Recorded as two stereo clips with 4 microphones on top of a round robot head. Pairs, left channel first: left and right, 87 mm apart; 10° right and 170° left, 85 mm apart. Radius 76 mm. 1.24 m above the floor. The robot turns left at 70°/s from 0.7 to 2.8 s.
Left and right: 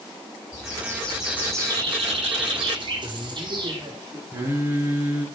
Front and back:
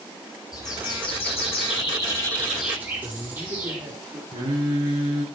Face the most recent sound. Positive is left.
turn(degrees=-150)